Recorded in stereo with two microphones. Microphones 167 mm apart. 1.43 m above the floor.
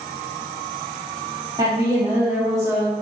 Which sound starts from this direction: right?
A woman speaking, at 1.6 s.